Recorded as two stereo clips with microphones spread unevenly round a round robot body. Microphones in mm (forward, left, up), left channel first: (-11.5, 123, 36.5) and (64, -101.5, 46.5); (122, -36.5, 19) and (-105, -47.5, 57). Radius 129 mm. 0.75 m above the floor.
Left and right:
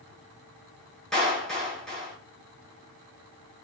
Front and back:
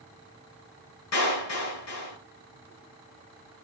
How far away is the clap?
About 9 m.